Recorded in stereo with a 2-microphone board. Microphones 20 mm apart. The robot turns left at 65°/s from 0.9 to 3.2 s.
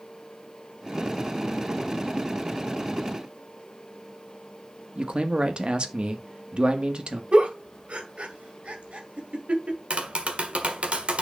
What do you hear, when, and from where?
5.0 s a man speaking: 55° right (ahead or behind), 1.4 m
7.3 s a giggle: 80° right, 1.7 m
9.9 s tapping: 85° right, 1.4 m